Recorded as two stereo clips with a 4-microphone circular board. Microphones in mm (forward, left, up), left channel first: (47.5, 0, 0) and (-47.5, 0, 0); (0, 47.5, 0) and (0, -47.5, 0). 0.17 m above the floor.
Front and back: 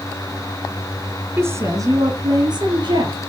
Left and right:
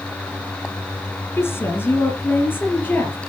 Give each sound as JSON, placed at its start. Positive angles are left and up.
{"t": 1.4, "sound": "a woman speaking", "azimuth_deg": 135, "distance_m": 1.7}